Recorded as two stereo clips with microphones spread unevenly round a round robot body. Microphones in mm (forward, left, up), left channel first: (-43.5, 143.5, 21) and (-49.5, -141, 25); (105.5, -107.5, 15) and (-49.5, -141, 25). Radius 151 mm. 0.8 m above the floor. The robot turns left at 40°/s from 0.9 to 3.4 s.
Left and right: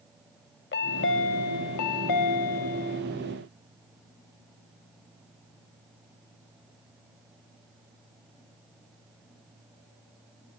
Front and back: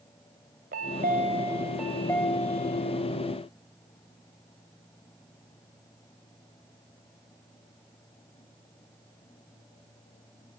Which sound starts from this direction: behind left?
A chime, at 0.7 s.